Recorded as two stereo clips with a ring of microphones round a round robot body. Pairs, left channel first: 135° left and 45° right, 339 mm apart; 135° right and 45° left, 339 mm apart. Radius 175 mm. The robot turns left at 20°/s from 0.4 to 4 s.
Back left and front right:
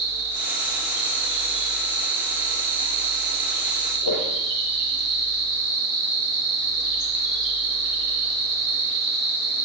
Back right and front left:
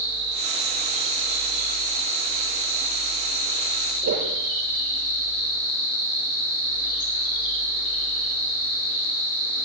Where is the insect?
5° right, 9 m; by 9.7 s 75° right, 9 m.